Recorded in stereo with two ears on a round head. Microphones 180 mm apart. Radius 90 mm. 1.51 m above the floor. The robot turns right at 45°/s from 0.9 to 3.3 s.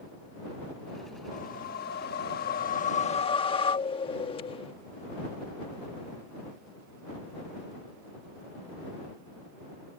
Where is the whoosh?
55° left; by 4.7 s 145° left.